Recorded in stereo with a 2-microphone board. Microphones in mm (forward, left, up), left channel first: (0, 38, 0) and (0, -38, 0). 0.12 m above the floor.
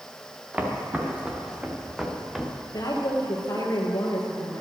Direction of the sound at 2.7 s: 55° left (ahead or behind).